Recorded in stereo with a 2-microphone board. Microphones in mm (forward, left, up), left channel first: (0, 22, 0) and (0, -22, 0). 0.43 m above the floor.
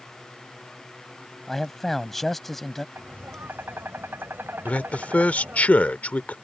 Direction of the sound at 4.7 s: 35° left (ahead or behind).